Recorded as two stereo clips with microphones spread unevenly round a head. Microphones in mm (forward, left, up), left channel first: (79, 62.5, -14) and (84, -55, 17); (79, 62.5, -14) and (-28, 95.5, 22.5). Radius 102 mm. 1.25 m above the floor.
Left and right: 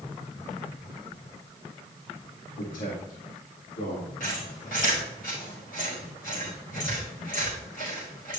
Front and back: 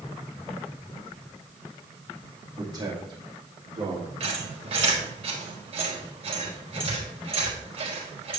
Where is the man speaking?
105° left, 2.5 m; by 4.1 s 125° left, 3.5 m.